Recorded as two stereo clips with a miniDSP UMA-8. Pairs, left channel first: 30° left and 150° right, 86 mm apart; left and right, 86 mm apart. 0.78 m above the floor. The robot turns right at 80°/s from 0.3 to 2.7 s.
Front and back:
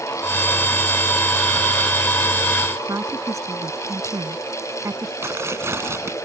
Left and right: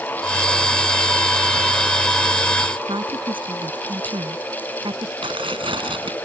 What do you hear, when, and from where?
2.9 s a woman speaking: 100° right
5.2 s tearing paper: 90° right